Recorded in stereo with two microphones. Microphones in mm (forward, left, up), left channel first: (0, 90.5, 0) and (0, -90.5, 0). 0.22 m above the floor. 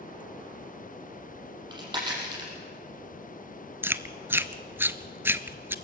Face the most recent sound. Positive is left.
turn(degrees=-10)  # may be behind; listen again after turning